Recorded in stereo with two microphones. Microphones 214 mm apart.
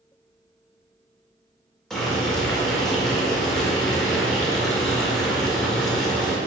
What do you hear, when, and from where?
1.9 s boiling: centre (ahead or behind), 1.7 m